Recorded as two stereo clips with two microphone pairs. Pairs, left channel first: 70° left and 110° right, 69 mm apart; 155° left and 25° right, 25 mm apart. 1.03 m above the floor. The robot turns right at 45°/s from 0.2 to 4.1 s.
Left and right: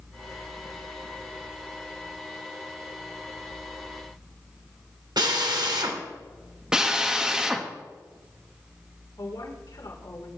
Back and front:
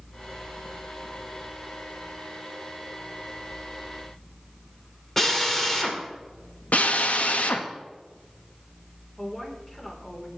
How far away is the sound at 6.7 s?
About 1.3 m.